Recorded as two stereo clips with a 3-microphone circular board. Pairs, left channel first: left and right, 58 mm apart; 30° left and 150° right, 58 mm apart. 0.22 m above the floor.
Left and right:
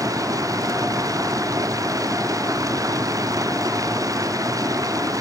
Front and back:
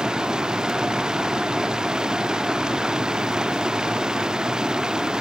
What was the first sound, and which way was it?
Running water, 70° right.